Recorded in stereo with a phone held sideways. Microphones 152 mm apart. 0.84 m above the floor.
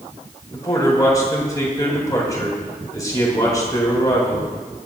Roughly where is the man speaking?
Left.